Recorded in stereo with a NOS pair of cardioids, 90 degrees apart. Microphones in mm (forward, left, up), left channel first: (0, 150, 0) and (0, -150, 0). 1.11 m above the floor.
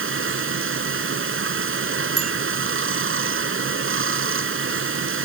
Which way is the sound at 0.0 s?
45° right.